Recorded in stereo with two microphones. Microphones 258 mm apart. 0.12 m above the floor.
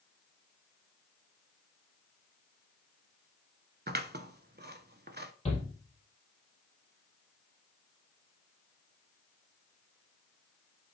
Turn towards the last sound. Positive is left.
turn(degrees=25)  # may be behind; listen again after turning